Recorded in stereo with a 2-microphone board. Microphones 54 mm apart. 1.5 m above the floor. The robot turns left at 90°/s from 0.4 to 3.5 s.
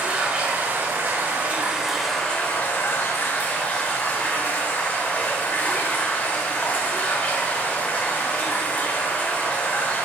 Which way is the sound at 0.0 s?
35° right.